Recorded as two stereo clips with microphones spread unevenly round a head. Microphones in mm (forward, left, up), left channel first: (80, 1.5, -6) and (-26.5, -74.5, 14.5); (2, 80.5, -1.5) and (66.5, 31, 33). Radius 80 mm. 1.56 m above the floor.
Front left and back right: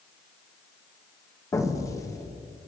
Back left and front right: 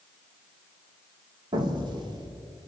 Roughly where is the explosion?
Ahead right.